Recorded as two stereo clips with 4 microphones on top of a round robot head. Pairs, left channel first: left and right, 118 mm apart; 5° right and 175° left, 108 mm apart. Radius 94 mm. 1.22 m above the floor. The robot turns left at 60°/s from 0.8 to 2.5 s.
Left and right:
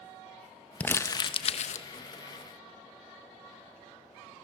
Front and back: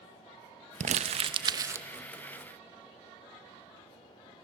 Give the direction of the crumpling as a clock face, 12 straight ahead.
6 o'clock.